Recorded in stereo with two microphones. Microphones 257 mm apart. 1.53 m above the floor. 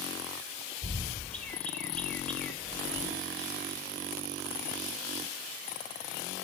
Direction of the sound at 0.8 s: 5° left (ahead or behind).